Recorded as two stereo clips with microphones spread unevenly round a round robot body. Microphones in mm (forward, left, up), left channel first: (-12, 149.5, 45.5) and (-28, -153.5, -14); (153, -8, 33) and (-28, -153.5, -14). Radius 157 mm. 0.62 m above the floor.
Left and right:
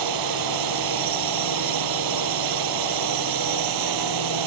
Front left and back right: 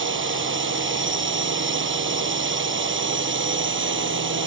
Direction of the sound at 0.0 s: 105° right.